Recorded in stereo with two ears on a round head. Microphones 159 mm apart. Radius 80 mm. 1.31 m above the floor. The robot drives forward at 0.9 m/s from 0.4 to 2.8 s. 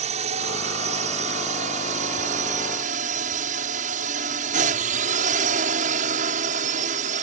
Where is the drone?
40° right (ahead or behind); by 7.2 s 45° right (ahead or behind).